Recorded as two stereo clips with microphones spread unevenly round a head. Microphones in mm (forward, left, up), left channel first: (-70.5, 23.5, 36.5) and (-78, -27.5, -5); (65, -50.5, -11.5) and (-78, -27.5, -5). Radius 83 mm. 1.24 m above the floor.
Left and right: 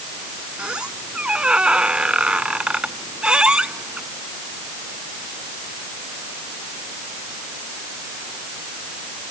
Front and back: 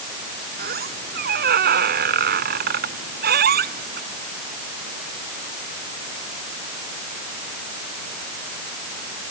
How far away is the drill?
No drill in this recording.